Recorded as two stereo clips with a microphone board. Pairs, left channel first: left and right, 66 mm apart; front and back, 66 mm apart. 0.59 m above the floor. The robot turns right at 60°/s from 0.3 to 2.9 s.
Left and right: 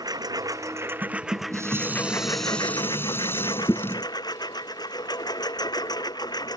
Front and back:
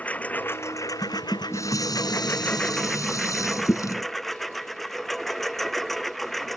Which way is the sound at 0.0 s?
70° right.